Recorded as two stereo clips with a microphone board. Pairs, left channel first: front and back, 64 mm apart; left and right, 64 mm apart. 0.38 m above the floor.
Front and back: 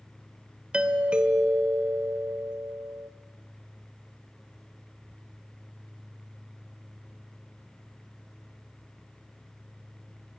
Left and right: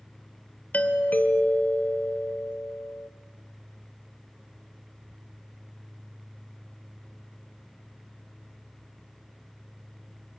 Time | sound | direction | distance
0.7 | a doorbell | 125° left | 1.7 m